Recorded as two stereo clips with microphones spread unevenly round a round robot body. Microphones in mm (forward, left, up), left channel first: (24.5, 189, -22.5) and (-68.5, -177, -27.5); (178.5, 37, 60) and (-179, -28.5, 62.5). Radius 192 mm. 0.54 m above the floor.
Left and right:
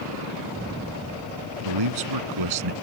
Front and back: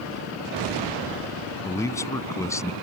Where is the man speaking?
70° right.